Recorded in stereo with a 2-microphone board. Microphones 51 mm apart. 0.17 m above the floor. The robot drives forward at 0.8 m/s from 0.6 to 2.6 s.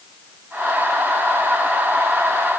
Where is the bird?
No bird in this recording.